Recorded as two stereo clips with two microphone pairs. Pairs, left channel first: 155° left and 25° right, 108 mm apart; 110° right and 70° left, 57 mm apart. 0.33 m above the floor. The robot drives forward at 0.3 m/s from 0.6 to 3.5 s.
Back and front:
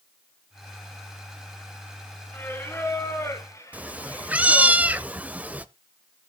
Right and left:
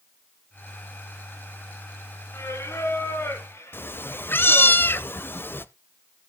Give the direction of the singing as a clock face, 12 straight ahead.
5 o'clock.